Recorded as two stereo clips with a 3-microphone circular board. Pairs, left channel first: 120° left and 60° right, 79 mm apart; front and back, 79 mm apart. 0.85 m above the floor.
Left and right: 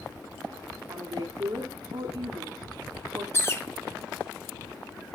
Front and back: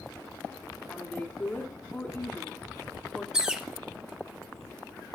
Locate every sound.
0.9 s a woman speaking: 65° right, 2 m
3.3 s a bird: 105° left, 0.9 m